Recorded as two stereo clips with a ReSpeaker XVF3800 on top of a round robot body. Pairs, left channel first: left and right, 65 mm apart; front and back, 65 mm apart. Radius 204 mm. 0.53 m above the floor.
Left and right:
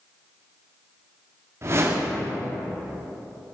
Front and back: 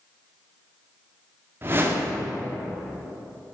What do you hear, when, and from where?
1.6 s a whoosh: 130° right, 2 m